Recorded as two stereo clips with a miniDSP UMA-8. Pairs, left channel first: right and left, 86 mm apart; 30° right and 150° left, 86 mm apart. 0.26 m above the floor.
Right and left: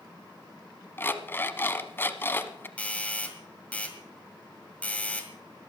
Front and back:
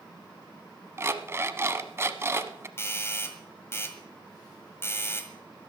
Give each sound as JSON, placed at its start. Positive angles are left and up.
{"t": 1.0, "sound": "an alarm clock", "azimuth_deg": -150, "distance_m": 0.8}
{"t": 2.8, "sound": "a doorbell", "azimuth_deg": -35, "distance_m": 1.6}